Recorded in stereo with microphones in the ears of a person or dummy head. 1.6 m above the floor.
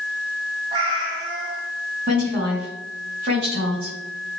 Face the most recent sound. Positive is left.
turn(degrees=-50)  # may be behind; listen again after turning